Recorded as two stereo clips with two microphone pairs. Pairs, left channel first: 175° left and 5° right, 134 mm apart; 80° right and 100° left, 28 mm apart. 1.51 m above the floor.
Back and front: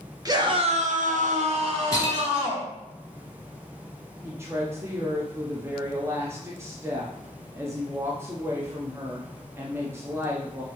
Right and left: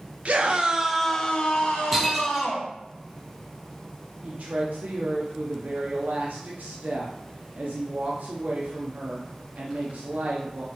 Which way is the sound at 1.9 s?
Straight behind.